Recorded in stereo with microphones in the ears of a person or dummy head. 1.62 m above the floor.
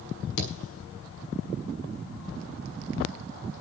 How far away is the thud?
About 6.5 m.